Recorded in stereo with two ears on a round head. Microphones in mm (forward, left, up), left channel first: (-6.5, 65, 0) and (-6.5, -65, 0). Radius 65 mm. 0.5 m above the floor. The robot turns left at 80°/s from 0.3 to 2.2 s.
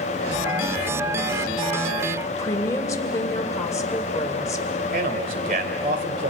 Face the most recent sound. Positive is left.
turn(degrees=-60)  # may be behind; listen again after turning